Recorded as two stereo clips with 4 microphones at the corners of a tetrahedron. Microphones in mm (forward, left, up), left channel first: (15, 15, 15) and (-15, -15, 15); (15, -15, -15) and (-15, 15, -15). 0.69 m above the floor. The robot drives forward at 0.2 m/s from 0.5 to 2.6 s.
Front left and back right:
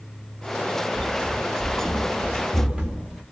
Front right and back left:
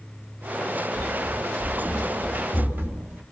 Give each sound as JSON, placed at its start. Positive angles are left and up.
{"t": 0.9, "sound": "running footsteps", "azimuth_deg": -150, "distance_m": 1.4}